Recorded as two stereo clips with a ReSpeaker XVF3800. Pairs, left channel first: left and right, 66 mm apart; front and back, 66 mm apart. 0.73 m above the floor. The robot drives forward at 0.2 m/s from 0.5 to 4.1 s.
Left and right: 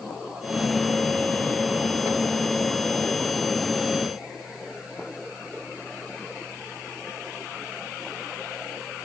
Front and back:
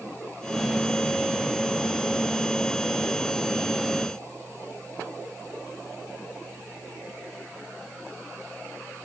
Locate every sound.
Only background noise.